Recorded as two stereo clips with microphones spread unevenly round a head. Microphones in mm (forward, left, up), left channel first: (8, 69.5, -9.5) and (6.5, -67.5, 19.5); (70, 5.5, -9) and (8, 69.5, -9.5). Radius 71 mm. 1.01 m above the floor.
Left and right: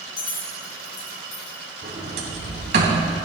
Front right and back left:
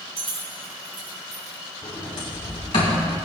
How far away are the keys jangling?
About 3.5 m.